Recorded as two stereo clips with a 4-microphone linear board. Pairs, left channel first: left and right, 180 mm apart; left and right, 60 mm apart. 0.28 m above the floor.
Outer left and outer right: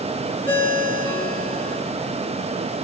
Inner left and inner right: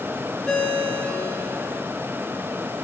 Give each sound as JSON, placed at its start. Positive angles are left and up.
{"t": 0.5, "sound": "a ringtone", "side_deg": 10, "distance_m": 4.0}